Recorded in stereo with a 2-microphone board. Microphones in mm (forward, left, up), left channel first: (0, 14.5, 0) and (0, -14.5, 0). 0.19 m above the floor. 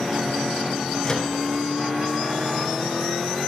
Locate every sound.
1.0 s a microwave: 25° left (ahead or behind), 1.2 m